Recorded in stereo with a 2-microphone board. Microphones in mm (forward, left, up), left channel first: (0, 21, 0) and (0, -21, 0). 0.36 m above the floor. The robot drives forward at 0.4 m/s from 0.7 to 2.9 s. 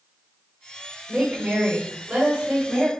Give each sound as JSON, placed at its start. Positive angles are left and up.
{"t": 1.1, "sound": "a woman speaking", "side_deg": -25, "distance_m": 1.2}